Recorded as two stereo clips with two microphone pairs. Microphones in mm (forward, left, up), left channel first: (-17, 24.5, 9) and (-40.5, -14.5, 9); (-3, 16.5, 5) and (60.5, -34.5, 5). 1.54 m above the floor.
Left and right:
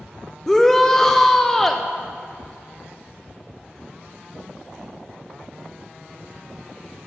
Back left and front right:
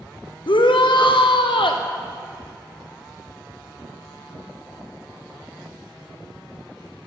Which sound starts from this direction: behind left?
A shout, at 0.5 s.